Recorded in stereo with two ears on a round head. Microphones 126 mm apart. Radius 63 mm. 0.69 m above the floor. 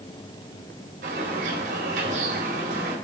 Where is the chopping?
No chopping in this recording.